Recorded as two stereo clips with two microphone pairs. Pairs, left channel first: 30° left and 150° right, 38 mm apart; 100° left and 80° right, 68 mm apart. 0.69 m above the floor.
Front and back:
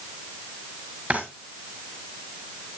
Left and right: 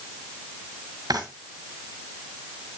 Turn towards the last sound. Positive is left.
turn(degrees=-95)